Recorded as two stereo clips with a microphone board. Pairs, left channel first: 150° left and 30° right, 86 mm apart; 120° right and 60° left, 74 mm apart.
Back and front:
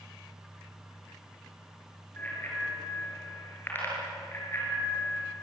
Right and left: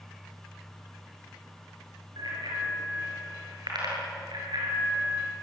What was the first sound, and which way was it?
A bicycle bell, 80° left.